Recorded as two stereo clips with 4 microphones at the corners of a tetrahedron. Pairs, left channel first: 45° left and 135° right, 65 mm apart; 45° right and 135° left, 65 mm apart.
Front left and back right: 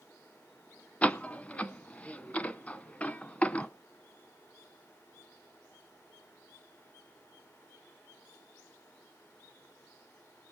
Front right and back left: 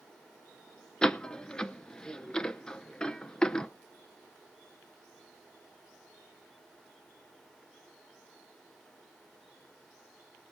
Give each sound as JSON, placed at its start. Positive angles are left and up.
{"t": 1.0, "sound": "a door slam", "azimuth_deg": 15, "distance_m": 0.7}